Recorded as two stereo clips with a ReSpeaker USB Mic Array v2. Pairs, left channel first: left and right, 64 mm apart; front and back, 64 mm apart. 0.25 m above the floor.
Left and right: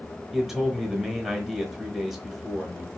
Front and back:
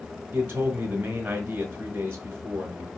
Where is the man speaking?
170° left, 1.1 m.